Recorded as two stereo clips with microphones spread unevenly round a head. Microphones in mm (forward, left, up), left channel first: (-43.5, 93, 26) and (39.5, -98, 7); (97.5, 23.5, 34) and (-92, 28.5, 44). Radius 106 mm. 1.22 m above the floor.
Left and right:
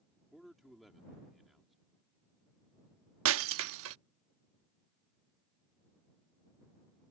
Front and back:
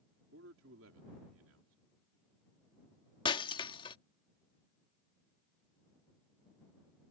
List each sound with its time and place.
0.3 s a man speaking: 155° right
3.2 s breaking glass: 70° right